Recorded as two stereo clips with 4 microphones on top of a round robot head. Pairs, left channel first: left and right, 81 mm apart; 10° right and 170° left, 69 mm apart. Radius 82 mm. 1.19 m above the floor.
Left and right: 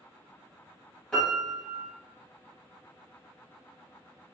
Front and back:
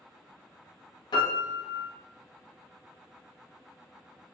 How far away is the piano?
About 0.8 m.